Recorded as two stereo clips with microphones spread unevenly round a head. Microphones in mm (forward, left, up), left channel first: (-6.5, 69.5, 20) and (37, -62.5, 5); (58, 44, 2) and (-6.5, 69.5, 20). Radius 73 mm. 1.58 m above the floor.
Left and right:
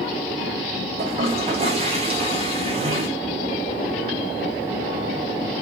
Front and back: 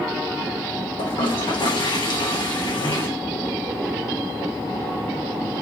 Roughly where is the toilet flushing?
Ahead right.